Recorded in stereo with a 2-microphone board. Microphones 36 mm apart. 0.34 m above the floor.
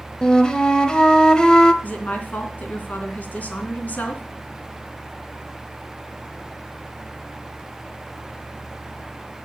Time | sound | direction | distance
0.2 | a flute | 25° left (ahead or behind) | 1.0 m
1.8 | a woman speaking | 45° left (ahead or behind) | 3 m